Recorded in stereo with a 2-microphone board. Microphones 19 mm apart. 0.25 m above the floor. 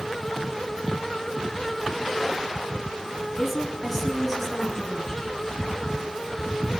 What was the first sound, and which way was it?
A woman speaking, 5° right (ahead or behind).